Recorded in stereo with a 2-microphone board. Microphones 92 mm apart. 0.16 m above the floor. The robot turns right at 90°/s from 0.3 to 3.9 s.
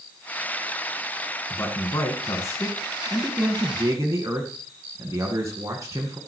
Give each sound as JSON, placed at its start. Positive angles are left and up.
{"t": 1.5, "sound": "a man speaking", "azimuth_deg": 35, "distance_m": 1.9}